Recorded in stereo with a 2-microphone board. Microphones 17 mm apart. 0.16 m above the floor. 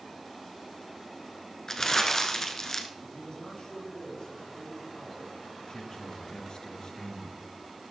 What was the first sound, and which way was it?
Crumpling, 25° left (ahead or behind).